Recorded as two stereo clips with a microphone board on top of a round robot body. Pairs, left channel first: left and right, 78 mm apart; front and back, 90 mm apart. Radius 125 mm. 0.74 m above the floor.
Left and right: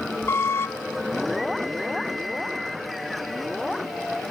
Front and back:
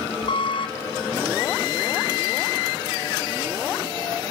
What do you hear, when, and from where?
0.3 s a squeak: 30° left, 0.8 m